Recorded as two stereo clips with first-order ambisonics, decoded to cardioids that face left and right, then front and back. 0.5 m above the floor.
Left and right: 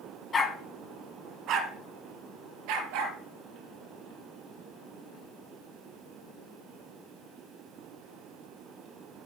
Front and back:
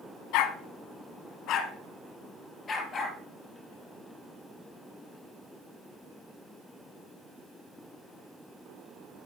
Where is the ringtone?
I don't hear a ringtone.